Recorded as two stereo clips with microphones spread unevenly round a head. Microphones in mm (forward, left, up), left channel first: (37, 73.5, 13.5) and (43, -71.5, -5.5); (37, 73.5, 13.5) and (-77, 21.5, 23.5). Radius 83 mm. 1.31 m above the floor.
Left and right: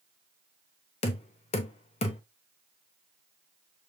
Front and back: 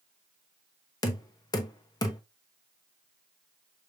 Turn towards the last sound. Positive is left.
turn(degrees=80)